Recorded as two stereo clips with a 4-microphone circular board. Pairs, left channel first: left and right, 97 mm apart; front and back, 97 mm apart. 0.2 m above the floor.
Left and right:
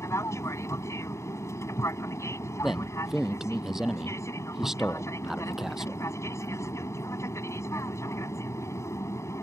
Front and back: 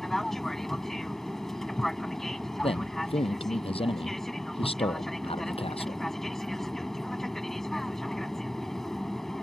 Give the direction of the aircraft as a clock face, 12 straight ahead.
9 o'clock.